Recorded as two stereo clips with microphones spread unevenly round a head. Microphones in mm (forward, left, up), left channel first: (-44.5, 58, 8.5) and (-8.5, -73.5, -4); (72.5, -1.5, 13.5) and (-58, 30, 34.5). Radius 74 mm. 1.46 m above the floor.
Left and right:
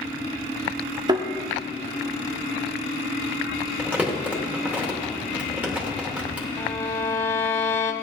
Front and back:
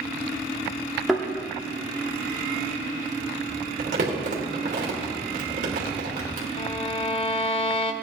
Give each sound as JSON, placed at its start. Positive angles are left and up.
{"t": 1.1, "sound": "a thud", "azimuth_deg": -120, "distance_m": 1.1}
{"t": 3.8, "sound": "crumpling", "azimuth_deg": -155, "distance_m": 2.5}
{"t": 6.6, "sound": "a violin", "azimuth_deg": 35, "distance_m": 0.7}